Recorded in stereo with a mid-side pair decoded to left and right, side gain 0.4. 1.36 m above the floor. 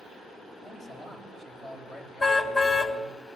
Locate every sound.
0.6 s a man speaking: 40° left, 9.5 m; by 3.2 s 50° left, 8.5 m
2.2 s a car horn: 35° left, 3.5 m